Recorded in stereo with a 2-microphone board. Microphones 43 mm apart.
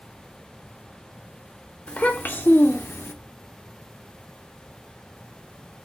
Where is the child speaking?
35° left (ahead or behind), 0.8 m; by 3.1 s 75° left (ahead or behind), 0.7 m.